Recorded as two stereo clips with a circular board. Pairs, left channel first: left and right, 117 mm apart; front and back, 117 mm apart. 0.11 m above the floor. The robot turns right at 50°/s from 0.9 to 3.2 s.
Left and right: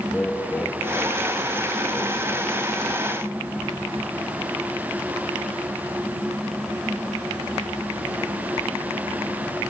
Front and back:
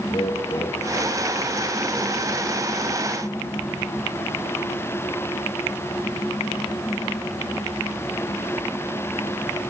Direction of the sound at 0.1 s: 20° left.